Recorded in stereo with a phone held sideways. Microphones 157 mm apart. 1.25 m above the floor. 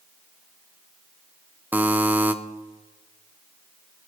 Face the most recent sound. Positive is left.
turn(degrees=-10)  # may be behind; listen again after turning